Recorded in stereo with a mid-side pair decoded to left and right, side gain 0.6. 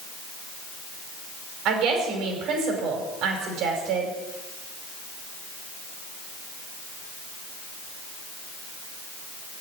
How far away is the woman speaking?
About 5 m.